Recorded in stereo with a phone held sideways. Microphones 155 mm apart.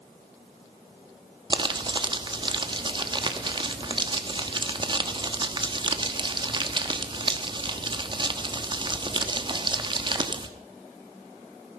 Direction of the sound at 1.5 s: 30° right (ahead or behind).